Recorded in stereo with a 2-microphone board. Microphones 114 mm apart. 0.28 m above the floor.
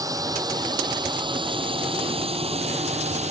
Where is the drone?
30° right (ahead or behind); by 3.3 s 65° right (ahead or behind).